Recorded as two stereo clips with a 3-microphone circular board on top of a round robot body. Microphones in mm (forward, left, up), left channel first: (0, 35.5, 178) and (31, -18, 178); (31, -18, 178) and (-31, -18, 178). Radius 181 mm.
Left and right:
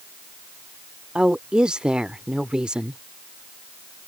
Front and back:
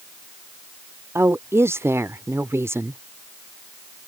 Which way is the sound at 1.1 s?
135° right.